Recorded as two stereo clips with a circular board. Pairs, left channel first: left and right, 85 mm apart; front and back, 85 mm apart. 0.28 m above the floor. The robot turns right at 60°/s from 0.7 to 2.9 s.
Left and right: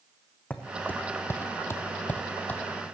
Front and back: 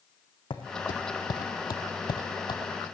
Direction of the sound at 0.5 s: 15° left.